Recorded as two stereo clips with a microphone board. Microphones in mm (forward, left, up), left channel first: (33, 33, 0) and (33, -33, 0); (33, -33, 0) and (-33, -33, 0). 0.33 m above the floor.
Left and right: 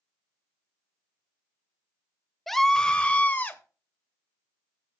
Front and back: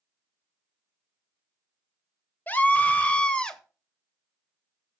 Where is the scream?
10° left, 1.1 m; by 3.6 s 70° left, 1.2 m.